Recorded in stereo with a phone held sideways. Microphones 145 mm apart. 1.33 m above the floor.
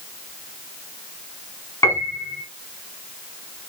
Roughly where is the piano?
Left.